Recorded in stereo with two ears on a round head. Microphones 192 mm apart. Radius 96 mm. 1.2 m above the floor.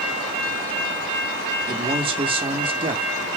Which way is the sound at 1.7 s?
25° right (ahead or behind).